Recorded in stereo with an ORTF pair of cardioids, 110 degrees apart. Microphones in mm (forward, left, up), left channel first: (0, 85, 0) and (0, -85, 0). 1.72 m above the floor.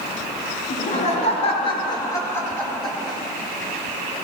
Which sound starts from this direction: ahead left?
Laughter, at 0.7 s.